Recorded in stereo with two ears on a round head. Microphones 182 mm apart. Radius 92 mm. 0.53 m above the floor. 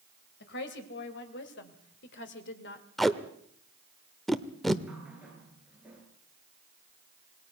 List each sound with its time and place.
0.4 s a woman speaking: 60° left (ahead or behind), 3 m; by 2.9 s 55° left (ahead or behind), 2 m
3.0 s tape being pulled: centre (ahead or behind), 1.0 m
4.9 s a running tap: 5° right (ahead or behind), 5.5 m